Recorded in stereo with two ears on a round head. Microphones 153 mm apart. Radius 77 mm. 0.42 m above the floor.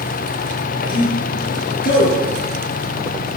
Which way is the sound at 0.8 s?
60° left (ahead or behind).